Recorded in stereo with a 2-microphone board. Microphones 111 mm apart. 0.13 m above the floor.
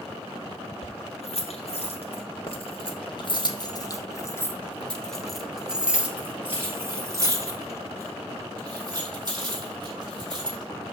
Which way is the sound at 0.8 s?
70° left (ahead or behind).